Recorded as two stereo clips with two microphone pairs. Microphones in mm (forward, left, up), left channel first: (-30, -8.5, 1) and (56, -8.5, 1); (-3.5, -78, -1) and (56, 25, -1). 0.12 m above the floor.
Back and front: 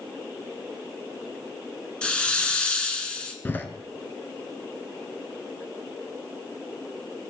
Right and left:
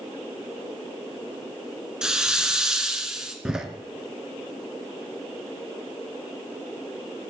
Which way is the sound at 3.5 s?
140° left.